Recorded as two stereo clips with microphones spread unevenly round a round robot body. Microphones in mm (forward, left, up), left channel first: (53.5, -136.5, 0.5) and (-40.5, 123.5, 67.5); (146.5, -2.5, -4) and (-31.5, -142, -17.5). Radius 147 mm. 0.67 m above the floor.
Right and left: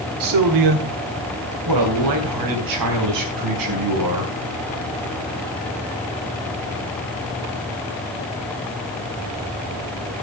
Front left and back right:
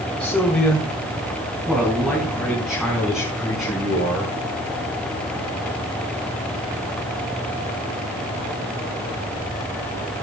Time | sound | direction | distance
0.2 | a man speaking | 125° left | 2.0 m